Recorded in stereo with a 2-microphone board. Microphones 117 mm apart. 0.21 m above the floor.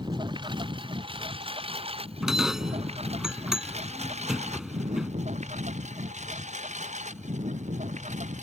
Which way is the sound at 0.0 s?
40° right (ahead or behind).